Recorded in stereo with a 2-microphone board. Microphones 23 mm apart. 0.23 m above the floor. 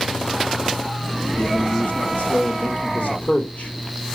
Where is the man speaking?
50° left (ahead or behind), 2.5 m; by 3.7 s 65° left (ahead or behind), 5 m.